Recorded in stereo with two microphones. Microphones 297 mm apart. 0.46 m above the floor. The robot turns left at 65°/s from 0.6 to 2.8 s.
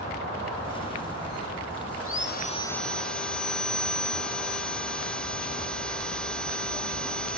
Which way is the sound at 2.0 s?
55° left.